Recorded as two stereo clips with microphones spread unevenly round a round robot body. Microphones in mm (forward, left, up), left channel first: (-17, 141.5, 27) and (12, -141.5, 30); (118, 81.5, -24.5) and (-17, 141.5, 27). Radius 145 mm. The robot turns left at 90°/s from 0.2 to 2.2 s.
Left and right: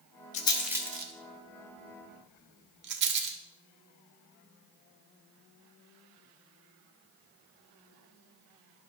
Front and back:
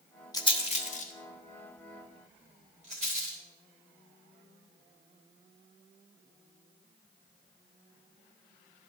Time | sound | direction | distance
0.3 | a rattle | 35° left | 1.1 m